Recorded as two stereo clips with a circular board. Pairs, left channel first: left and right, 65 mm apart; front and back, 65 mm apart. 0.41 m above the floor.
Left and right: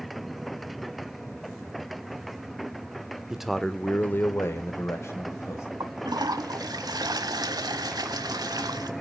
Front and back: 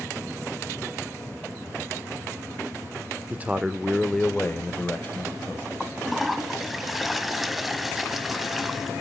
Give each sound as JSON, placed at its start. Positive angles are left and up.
{"t": 3.3, "sound": "a man speaking", "azimuth_deg": -165, "distance_m": 0.8}
{"t": 5.8, "sound": "a toilet flushing", "azimuth_deg": -90, "distance_m": 0.9}